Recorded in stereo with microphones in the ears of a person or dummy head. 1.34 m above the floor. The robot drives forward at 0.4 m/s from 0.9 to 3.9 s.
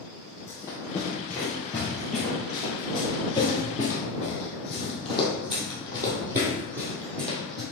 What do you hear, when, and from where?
0.5 s running footsteps: 20° left (ahead or behind), 2.5 m; by 7.6 s 55° right (ahead or behind), 2.5 m